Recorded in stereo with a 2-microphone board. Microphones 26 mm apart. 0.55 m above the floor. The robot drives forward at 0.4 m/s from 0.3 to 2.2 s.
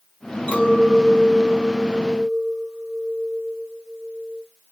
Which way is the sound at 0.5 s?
75° left (ahead or behind).